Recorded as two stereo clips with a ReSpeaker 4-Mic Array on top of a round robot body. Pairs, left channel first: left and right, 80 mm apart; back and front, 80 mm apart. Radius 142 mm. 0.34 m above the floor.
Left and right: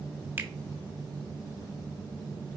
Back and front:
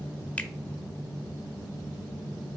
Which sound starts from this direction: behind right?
A finger snap, at 0.4 s.